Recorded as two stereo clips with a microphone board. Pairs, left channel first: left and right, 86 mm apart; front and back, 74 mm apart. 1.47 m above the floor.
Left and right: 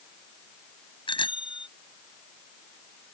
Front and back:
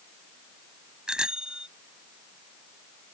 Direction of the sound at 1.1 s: 100° left.